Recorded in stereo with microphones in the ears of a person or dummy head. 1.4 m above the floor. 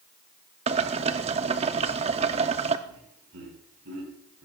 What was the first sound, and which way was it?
Boiling, 30° right (ahead or behind).